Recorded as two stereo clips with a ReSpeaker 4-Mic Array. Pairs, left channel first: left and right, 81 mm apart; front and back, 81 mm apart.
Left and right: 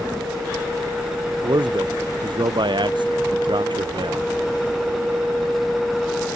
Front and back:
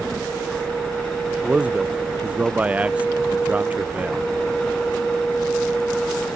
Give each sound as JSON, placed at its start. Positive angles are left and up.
{"t": 1.4, "sound": "a man speaking", "azimuth_deg": -105}